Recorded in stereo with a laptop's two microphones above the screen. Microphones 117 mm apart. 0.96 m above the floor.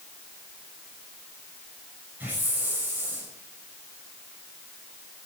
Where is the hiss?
15° right (ahead or behind), 6 m.